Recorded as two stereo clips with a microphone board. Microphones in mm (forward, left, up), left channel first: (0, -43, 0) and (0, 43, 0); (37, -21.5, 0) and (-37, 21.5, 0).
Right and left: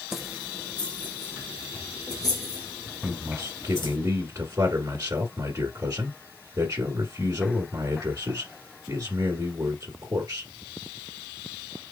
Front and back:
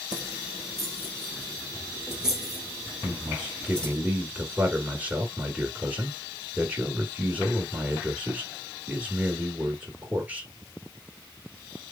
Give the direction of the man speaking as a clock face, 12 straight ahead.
9 o'clock.